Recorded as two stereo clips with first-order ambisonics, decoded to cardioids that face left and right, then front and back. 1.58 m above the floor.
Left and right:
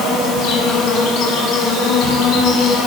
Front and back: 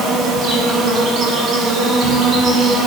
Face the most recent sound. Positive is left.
turn(degrees=125)